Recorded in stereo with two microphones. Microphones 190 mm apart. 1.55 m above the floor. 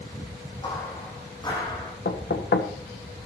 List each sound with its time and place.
0.6 s footsteps: 25° left (ahead or behind), 5.5 m
2.0 s knocking: 70° left (ahead or behind), 1.2 m